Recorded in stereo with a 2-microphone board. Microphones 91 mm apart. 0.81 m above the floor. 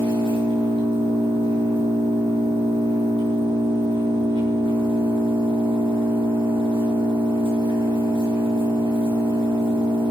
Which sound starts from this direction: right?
An engine running, at 0.0 s.